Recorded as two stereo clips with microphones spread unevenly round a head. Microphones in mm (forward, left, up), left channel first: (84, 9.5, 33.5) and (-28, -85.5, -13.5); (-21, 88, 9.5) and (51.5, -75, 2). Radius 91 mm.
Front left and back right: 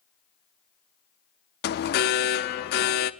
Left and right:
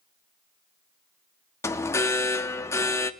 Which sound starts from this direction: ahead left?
An alarm, at 1.6 s.